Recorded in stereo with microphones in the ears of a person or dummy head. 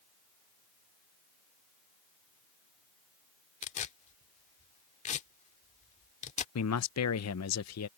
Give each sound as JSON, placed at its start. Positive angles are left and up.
{"t": 3.6, "sound": "tearing paper", "side_deg": 35}
{"t": 6.5, "sound": "a man speaking", "side_deg": 75}